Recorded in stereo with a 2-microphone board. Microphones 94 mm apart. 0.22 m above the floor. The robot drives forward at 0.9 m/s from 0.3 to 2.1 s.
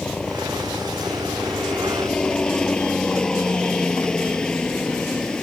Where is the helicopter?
5° left (ahead or behind).